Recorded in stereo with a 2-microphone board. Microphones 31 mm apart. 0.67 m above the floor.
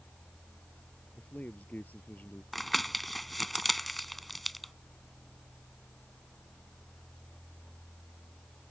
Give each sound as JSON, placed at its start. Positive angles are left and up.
{"t": 1.1, "sound": "a man speaking", "side_deg": 70}
{"t": 2.5, "sound": "crumpling", "side_deg": 0}